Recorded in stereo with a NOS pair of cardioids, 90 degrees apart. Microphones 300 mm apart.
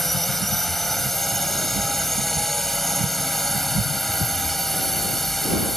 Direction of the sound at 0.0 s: Straight ahead.